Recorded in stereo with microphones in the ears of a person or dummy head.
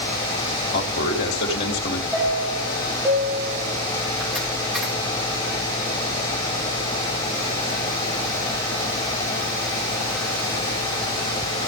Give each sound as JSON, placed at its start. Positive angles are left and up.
{"t": 0.7, "sound": "a man speaking", "side_deg": 50, "distance_m": 3.5}
{"t": 2.1, "sound": "a chime", "side_deg": 5, "distance_m": 3.5}